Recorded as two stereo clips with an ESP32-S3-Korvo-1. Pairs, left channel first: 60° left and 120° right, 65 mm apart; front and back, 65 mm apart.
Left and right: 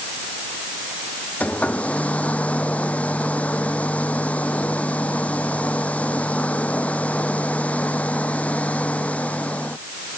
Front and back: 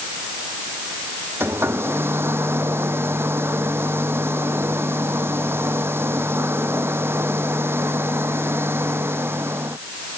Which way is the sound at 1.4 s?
130° left.